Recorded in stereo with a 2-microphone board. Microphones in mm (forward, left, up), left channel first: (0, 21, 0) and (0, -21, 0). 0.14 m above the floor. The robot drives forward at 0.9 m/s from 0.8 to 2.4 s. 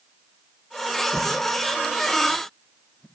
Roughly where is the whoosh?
Centre.